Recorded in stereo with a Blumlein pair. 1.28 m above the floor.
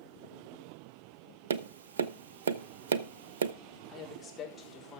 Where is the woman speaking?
15° left, 4.5 m.